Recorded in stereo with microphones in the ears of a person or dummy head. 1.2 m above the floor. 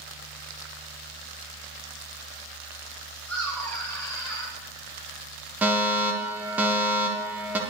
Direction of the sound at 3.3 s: 5° left (ahead or behind).